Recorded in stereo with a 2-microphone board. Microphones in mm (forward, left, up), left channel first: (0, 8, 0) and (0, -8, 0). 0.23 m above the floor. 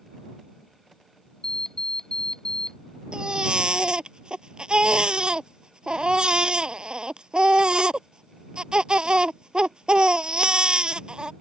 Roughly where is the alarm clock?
Left.